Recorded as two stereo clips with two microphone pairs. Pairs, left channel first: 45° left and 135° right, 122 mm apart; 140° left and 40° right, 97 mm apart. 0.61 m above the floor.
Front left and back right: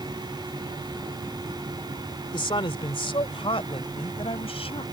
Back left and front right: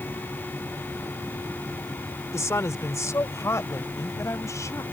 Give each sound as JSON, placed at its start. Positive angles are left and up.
{"t": 2.3, "sound": "a woman speaking", "azimuth_deg": 85}